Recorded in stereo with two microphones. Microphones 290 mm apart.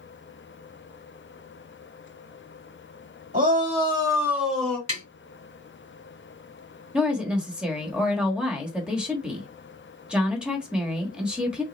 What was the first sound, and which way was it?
A shout, 25° right (ahead or behind).